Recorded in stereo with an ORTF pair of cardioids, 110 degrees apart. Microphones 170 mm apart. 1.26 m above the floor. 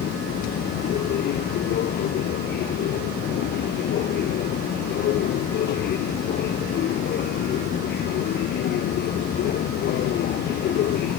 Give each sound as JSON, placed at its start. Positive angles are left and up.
{"t": 0.0, "sound": "a machine running", "azimuth_deg": 70}